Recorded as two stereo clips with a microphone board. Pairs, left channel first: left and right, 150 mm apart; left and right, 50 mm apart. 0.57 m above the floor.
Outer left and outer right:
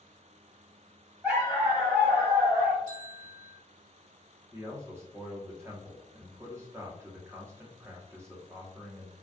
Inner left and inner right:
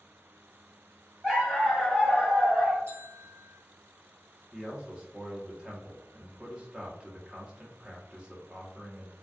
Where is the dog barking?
10° right (ahead or behind), 1.3 m.